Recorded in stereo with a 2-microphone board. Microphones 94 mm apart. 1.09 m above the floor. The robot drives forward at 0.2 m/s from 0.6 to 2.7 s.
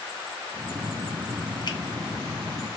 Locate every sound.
1.7 s a finger snap: 50° left (ahead or behind), 0.6 m